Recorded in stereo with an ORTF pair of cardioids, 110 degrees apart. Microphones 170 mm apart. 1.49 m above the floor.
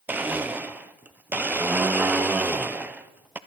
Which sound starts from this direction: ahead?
A blender, at 0.1 s.